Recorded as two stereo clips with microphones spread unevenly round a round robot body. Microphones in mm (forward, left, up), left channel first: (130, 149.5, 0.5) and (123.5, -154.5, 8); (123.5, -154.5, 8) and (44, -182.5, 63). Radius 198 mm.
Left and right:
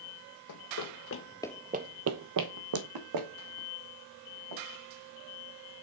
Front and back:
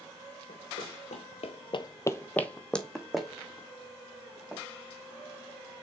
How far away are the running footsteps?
About 1.2 m.